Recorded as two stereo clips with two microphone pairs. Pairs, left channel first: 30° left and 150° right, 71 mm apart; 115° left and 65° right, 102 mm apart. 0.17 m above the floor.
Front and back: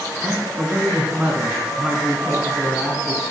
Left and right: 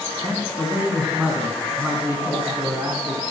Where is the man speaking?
120° right, 1.1 m.